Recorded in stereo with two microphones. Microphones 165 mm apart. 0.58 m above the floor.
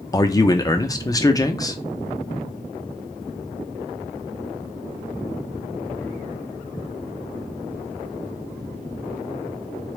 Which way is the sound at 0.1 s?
20° left (ahead or behind).